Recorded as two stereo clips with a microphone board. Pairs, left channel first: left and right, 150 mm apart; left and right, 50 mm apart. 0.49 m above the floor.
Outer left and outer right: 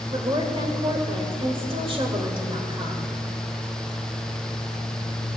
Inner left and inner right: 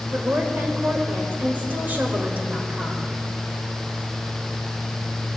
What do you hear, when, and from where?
0.1 s a woman speaking: 40° right (ahead or behind), 1.6 m